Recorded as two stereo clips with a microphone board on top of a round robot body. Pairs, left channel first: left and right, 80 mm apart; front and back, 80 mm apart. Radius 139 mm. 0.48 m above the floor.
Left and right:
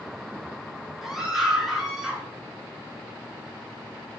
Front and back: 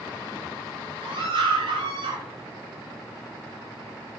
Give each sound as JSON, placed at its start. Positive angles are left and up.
{"t": 1.0, "sound": "a scream", "azimuth_deg": -175, "distance_m": 9.5}